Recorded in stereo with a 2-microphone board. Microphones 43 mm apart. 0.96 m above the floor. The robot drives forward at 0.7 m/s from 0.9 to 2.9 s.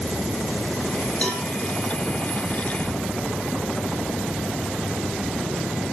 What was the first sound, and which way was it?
A cowbell, 30° left (ahead or behind).